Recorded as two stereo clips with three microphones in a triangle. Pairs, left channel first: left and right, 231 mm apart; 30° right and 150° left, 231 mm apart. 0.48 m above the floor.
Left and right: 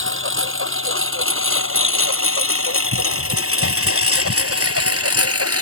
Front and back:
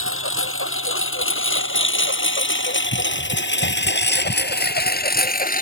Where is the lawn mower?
60° right; by 5.6 s 85° right.